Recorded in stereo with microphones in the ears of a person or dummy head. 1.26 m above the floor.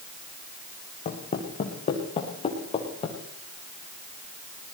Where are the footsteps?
30° left (ahead or behind), 6 m; by 3.2 s 25° left (ahead or behind), 7.5 m.